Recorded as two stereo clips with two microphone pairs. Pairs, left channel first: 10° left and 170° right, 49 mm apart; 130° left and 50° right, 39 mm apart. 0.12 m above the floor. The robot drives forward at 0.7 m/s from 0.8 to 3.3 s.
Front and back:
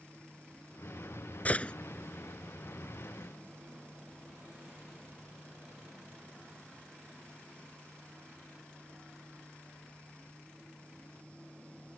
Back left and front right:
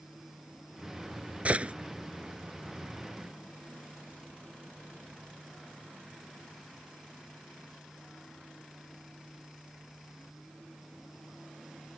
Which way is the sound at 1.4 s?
25° right.